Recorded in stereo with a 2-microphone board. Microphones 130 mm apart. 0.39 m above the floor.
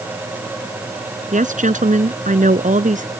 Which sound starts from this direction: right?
A woman speaking, at 1.3 s.